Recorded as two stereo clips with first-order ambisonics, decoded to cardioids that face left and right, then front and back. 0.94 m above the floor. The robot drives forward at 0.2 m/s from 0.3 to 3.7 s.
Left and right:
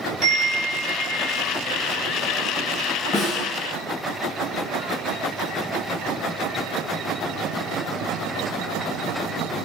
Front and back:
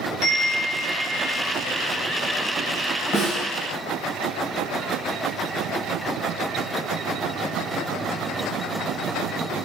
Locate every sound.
0.2 s a chime: 45° right, 0.9 m; by 1.4 s 55° right, 0.8 m
3.1 s a snare drum: 60° left, 1.5 m